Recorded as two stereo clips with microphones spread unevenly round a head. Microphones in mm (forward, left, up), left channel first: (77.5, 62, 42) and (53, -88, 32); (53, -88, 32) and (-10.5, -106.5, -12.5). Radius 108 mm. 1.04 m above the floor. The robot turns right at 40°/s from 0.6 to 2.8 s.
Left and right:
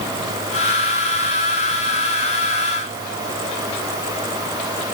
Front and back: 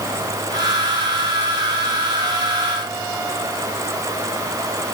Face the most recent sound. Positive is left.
No sound to turn to.